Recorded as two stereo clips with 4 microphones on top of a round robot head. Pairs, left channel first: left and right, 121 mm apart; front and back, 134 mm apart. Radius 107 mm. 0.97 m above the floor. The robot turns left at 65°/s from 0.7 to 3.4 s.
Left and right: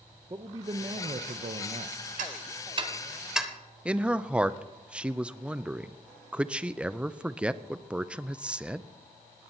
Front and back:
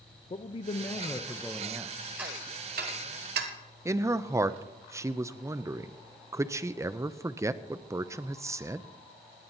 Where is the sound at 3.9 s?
160° right, 0.5 m.